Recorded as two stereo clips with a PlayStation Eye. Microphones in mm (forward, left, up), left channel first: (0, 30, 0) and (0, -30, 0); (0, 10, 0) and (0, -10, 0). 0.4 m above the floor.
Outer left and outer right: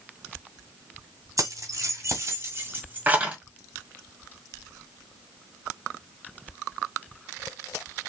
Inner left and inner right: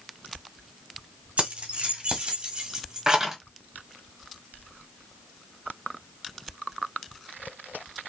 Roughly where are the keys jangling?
Right.